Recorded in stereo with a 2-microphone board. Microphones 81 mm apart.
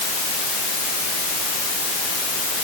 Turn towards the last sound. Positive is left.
No sound to turn to.